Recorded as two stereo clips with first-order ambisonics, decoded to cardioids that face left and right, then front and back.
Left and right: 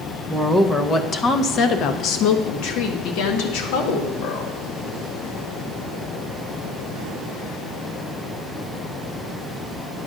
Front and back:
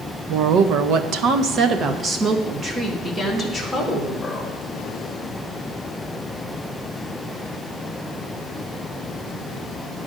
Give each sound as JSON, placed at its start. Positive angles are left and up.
{"t": 0.3, "sound": "a woman speaking", "azimuth_deg": -175, "distance_m": 0.9}